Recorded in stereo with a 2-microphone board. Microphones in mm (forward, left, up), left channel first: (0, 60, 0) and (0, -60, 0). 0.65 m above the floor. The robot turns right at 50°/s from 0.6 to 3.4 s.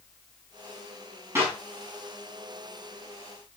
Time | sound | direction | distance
1.4 | a clap | 20° right (ahead or behind) | 5.5 m